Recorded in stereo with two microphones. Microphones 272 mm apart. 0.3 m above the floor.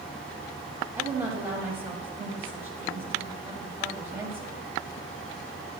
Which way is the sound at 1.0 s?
10° right (ahead or behind).